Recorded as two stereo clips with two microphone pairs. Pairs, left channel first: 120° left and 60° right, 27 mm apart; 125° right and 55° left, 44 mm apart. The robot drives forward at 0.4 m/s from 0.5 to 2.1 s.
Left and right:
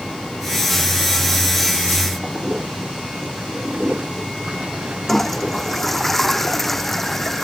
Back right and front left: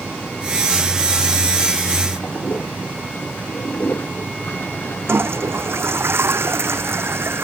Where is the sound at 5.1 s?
40° left.